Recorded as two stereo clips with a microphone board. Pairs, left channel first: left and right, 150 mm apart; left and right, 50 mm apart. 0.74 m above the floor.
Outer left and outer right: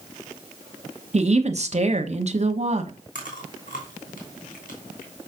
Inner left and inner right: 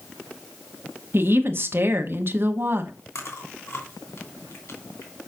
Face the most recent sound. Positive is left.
turn(degrees=70)  # may be behind; listen again after turning